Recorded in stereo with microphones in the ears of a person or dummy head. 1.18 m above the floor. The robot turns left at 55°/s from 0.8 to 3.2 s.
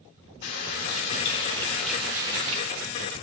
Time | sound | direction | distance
0.4 | a running tap | 60° left | 2 m